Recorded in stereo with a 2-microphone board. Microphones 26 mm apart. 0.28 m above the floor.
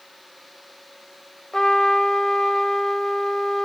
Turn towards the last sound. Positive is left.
turn(degrees=20)  # may be behind; listen again after turning